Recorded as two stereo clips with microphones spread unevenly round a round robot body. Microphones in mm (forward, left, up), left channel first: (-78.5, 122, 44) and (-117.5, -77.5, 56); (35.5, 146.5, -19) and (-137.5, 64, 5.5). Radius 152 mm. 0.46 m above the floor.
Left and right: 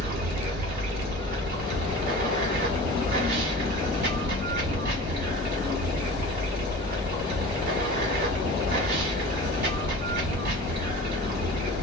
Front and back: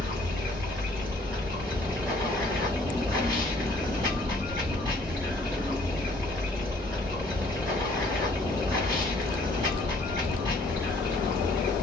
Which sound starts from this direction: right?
Running water, at 0.0 s.